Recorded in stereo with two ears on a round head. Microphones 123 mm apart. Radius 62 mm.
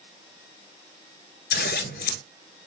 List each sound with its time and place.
1.5 s scissors: 75° left (ahead or behind), 1.1 m